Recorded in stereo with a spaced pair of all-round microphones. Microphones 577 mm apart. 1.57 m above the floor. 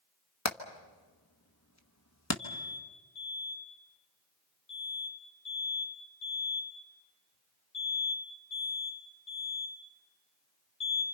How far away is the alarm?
About 9.5 m.